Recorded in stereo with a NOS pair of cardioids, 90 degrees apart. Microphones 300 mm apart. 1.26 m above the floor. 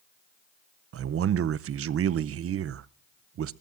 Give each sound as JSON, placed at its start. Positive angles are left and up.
{"t": 0.9, "sound": "a man speaking", "azimuth_deg": -50, "distance_m": 0.6}